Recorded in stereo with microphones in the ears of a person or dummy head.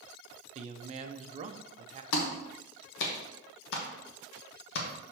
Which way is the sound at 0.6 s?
40° right (ahead or behind).